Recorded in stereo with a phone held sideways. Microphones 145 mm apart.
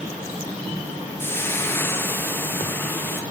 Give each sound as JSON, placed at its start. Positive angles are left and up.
{"t": 1.2, "sound": "frying", "side_deg": 15, "distance_m": 0.9}